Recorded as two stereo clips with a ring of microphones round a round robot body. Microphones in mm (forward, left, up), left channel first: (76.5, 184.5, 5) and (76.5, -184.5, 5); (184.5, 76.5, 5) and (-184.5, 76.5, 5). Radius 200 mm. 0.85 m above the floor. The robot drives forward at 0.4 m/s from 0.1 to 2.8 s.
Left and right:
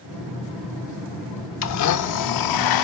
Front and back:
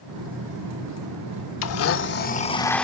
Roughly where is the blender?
Ahead left.